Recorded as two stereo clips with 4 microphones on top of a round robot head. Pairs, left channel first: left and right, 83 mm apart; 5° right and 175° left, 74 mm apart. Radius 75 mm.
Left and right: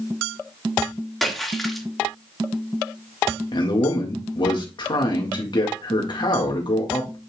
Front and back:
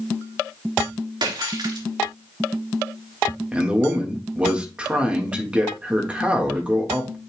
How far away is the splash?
About 2.5 m.